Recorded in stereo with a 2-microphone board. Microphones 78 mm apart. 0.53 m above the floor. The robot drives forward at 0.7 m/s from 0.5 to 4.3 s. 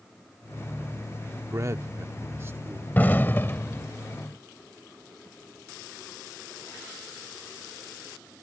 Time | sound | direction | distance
1.5 | a man speaking | 40° right (ahead or behind) | ?
3.0 | an explosion | 25° left (ahead or behind) | ?